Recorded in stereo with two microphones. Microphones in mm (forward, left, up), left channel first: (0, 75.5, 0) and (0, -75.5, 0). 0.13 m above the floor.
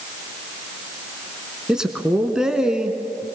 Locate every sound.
1.7 s a man speaking: 5° right (ahead or behind), 1.2 m